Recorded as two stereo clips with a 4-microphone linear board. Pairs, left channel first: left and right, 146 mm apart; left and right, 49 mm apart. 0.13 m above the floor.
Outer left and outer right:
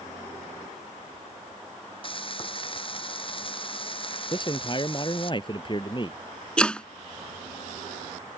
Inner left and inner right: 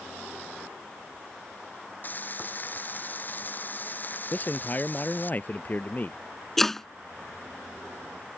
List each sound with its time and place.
2.0 s frying: 40° left (ahead or behind)
4.3 s a man speaking: 35° left (ahead or behind)
6.6 s chopping: 5° left (ahead or behind)